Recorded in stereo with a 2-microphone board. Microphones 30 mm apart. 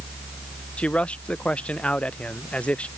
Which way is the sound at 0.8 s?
45° left (ahead or behind).